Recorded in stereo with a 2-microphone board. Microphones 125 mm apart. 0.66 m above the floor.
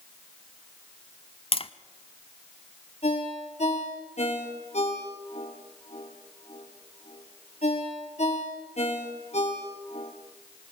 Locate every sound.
1.5 s tapping: 45° left (ahead or behind), 0.8 m
3.0 s a ringtone: 60° left (ahead or behind), 6.5 m